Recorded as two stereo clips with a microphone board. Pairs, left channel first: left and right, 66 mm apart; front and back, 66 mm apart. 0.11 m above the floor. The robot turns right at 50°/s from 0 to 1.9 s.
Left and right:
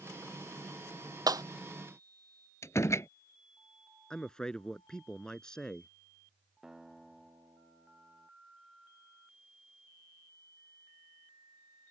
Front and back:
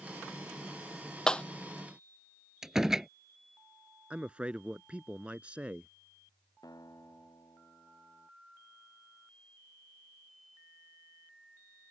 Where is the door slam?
105° left.